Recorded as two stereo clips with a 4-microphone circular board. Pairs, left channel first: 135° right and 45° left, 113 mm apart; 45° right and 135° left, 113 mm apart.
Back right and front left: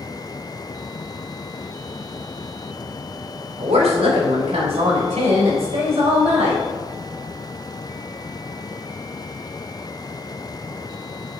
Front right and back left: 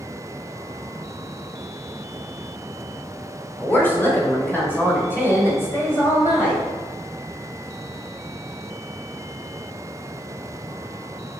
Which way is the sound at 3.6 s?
30° left.